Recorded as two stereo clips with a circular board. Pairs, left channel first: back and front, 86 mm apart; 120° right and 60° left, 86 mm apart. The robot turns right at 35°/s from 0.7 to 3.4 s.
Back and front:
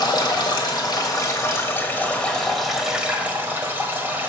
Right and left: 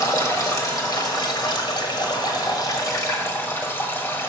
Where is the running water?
160° right, 1.3 m; by 4.3 s 65° right, 1.3 m.